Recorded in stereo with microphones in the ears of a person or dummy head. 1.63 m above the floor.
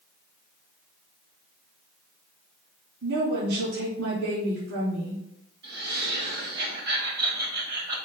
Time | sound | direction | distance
3.0 | a woman speaking | 70° right (ahead or behind) | 3.5 m
5.6 | laughter | 60° right (ahead or behind) | 3 m